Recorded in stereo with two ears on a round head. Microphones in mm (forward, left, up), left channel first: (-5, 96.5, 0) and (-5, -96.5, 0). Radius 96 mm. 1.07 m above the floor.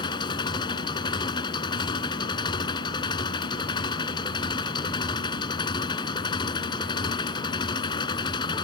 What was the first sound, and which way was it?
An engine running, 20° left (ahead or behind).